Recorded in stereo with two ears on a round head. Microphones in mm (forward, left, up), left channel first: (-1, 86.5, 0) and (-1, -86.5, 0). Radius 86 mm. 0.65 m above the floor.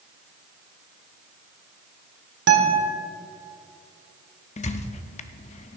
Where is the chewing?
No chewing in this recording.